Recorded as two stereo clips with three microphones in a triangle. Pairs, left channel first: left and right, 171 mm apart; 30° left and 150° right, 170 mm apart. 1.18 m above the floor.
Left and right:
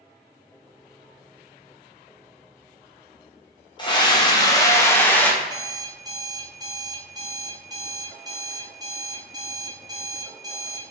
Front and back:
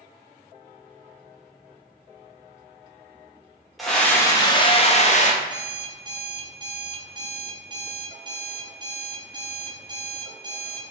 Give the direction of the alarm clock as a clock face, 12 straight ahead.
4 o'clock.